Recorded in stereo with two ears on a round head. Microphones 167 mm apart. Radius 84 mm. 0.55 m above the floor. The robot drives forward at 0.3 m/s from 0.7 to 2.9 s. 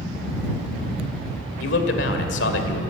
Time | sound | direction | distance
1.6 | a man speaking | 65° left (ahead or behind) | 1.8 m